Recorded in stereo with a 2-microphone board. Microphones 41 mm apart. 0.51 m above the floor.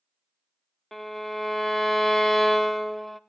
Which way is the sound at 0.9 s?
5° left (ahead or behind).